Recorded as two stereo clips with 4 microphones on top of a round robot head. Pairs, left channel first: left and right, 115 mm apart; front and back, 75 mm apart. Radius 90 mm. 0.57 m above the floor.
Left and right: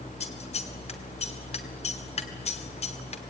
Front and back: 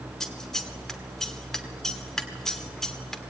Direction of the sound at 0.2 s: 85° left.